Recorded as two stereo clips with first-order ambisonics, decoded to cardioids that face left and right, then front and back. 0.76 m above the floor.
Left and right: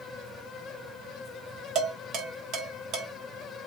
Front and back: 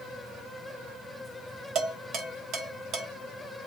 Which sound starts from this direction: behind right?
Dishes clattering, at 1.8 s.